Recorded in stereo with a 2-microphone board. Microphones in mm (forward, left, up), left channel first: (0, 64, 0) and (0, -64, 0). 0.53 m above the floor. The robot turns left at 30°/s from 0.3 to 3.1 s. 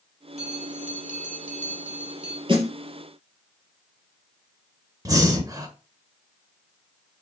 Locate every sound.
0.4 s a bell: 60° right, 2.0 m; by 2.4 s 120° right, 2.0 m
2.5 s a snare drum: 40° right (ahead or behind), 3 m; by 2.7 s 35° right (ahead or behind), 3 m
5.0 s breathing: 30° right (ahead or behind), 1.6 m